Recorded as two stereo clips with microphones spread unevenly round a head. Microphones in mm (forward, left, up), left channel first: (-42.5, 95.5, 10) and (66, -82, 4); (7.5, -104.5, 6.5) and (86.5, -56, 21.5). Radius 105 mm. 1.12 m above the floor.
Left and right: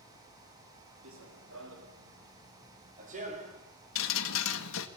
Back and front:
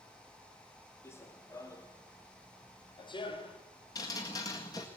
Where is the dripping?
150° left, 1.7 m.